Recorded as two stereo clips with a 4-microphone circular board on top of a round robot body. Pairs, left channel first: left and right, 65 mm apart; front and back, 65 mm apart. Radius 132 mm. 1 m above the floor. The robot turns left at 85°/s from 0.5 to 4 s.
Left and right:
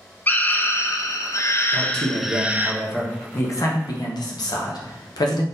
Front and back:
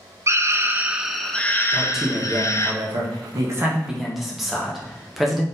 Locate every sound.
0.3 s a scream: 145° left, 0.7 m; by 2.7 s 40° right, 0.7 m
1.7 s a man speaking: 75° right, 0.9 m; by 5.4 s 90° left, 0.9 m